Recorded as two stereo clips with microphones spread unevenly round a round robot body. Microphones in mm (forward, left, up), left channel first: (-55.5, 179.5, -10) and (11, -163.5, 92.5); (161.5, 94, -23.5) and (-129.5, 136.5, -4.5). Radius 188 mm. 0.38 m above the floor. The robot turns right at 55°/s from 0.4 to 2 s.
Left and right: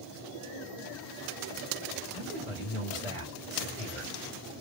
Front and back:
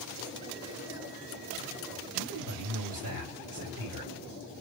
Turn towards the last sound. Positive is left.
turn(degrees=175)